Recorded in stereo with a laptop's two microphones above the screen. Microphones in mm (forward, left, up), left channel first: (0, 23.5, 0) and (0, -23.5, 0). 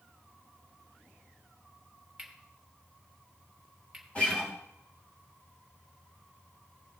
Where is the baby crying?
I don't hear a baby crying.